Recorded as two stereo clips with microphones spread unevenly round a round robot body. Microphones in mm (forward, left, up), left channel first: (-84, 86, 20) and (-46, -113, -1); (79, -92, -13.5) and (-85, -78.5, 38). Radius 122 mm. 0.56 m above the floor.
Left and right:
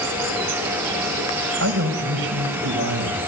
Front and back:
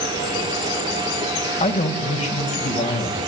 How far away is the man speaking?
About 4 m.